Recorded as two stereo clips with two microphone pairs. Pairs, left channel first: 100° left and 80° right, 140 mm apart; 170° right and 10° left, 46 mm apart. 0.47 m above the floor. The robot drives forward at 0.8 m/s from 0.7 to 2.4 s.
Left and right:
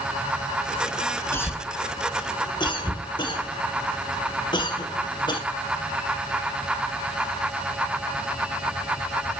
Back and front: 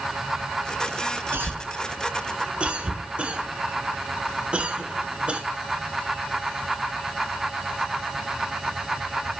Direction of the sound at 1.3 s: 30° left.